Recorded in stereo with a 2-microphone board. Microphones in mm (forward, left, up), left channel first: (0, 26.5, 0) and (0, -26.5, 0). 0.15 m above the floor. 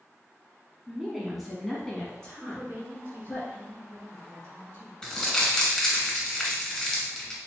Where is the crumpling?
15° left (ahead or behind), 2.0 m.